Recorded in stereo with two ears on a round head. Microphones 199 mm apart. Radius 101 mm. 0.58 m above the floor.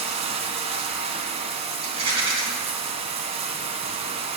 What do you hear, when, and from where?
0.0 s running water: 30° right (ahead or behind), 1.1 m
1.8 s a rattle: 25° right (ahead or behind), 3 m